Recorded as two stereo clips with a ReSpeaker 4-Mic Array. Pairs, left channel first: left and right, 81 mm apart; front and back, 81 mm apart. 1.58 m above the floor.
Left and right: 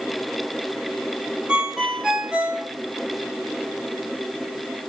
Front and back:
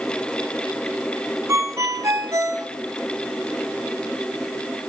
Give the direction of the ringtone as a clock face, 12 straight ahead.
5 o'clock.